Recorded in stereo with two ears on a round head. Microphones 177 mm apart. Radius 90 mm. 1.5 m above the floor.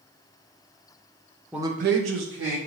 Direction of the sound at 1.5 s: 5° right (ahead or behind).